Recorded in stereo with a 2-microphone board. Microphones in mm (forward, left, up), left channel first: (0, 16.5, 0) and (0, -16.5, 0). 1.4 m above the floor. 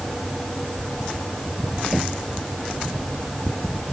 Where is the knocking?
10° right (ahead or behind).